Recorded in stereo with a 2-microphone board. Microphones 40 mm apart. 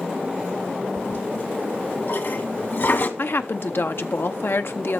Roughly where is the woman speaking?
Left.